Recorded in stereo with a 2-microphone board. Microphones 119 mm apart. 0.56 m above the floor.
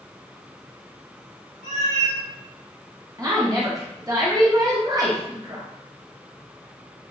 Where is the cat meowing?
70° right (ahead or behind), 0.9 m.